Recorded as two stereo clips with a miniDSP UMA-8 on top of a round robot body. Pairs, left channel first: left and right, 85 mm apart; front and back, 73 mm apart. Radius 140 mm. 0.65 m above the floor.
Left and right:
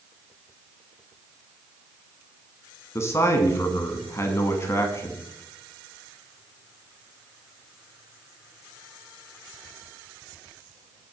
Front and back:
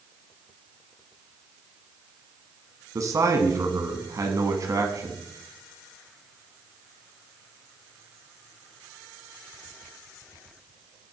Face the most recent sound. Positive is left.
turn(degrees=145)